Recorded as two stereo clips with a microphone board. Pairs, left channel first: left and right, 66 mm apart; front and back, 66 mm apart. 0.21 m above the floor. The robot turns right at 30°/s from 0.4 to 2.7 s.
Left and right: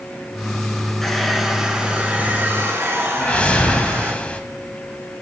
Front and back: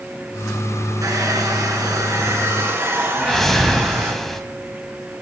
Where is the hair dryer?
175° left, 1.6 m; by 4.1 s 135° right, 1.6 m.